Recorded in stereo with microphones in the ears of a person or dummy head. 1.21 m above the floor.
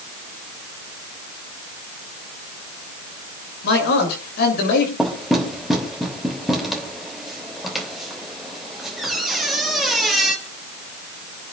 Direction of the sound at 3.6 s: 70° left (ahead or behind).